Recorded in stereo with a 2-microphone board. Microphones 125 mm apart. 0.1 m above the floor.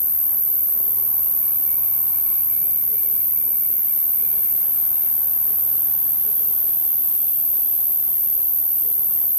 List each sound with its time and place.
0.0 s an insect: 35° right (ahead or behind), 0.7 m